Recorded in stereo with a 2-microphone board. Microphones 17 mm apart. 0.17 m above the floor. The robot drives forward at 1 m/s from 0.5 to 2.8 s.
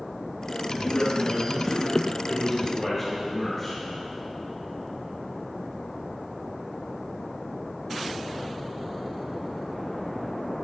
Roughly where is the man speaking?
Left.